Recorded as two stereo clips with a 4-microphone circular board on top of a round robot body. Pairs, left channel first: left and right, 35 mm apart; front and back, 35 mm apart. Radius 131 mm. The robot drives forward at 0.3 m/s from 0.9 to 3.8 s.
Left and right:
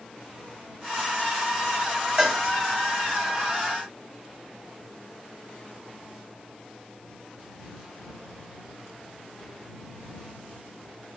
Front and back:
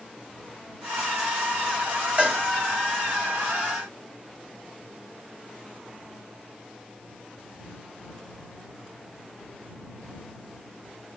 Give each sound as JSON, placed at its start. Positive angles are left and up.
{"t": 2.2, "sound": "a cowbell", "azimuth_deg": -155, "distance_m": 1.8}